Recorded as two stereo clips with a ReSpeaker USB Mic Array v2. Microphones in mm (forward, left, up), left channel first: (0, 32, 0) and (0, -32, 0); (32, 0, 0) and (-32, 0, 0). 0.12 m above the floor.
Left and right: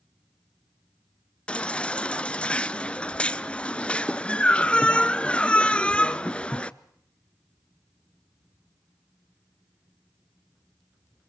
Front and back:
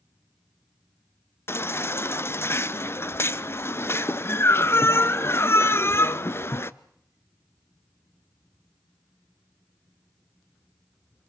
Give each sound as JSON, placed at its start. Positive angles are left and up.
{"t": 1.5, "sound": "a baby crying", "azimuth_deg": 25, "distance_m": 0.6}